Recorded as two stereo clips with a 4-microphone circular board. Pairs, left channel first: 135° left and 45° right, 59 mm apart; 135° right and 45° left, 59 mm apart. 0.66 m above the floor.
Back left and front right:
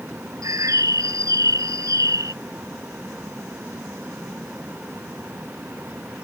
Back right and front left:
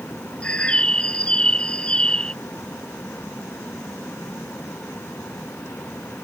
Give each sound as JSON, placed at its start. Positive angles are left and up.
{"t": 0.4, "sound": "a bird", "azimuth_deg": -65}